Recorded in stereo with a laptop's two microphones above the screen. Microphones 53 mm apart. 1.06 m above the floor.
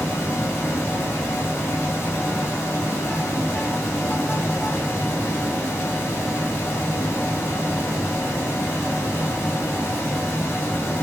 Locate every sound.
0.0 s a fan: 60° left (ahead or behind), 1.0 m